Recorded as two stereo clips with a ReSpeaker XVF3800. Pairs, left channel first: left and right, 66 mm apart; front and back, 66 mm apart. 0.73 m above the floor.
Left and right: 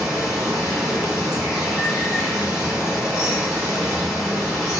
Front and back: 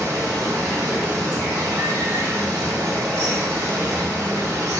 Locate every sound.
0.0 s running water: 170° right, 1.2 m